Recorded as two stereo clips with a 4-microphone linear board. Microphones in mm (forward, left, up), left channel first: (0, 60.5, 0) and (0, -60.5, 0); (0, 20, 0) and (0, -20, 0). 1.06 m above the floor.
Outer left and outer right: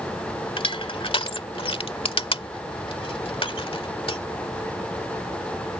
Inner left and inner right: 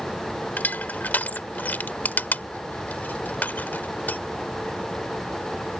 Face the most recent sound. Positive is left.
turn(degrees=50)  # may be behind; listen again after turning